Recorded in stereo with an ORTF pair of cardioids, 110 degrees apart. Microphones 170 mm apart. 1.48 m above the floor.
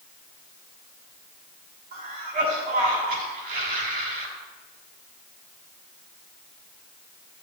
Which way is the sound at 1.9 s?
60° right.